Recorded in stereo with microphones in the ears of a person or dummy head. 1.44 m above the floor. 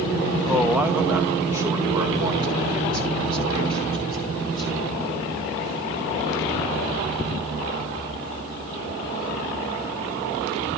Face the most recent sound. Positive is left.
turn(degrees=-25)  # may be behind; listen again after turning